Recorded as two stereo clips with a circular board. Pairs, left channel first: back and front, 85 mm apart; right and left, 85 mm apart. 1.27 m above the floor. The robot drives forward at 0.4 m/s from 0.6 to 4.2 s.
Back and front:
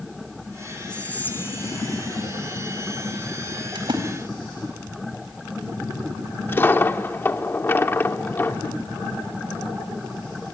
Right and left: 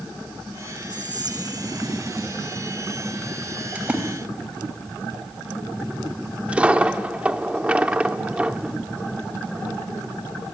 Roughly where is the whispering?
Left.